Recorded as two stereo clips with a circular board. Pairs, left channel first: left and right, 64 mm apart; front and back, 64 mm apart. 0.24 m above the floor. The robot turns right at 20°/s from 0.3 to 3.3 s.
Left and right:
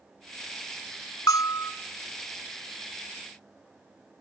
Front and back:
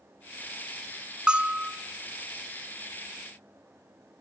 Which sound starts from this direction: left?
A bell, at 1.3 s.